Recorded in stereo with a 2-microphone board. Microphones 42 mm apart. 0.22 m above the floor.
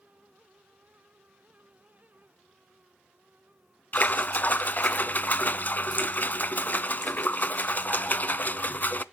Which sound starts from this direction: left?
A splash, at 3.9 s.